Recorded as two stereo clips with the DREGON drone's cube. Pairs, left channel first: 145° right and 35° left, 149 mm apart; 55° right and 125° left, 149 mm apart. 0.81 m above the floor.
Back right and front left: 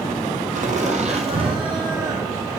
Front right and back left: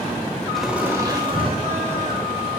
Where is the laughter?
30° left, 1.3 m; by 2.5 s 105° left, 2.5 m.